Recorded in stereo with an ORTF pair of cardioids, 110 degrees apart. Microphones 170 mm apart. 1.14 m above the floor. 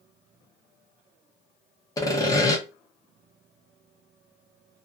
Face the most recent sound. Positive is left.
turn(degrees=20)